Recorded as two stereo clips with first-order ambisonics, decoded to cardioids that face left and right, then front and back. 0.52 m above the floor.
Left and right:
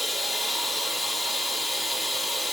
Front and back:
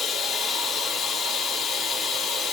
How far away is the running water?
About 0.7 m.